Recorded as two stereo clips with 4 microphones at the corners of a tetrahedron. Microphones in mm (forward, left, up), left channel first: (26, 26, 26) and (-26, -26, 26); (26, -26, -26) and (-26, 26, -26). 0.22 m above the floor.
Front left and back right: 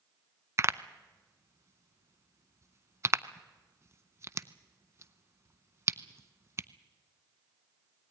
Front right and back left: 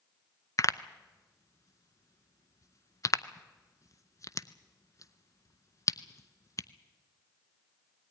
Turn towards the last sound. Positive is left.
turn(degrees=-85)